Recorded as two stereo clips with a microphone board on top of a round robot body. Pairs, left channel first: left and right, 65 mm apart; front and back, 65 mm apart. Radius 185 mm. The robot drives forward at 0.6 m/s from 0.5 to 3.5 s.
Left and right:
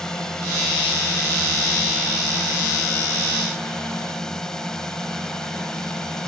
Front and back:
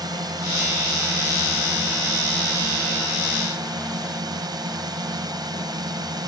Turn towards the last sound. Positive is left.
turn(degrees=170)